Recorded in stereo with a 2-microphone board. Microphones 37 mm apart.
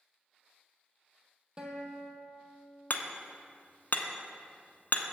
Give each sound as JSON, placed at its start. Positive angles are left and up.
{"t": 1.6, "sound": "a guitar", "side_deg": -20, "distance_m": 1.2}
{"t": 2.9, "sound": "hammering", "side_deg": 55, "distance_m": 0.6}